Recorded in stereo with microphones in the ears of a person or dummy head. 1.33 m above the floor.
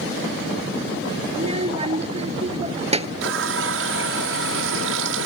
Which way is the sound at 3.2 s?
65° right (ahead or behind).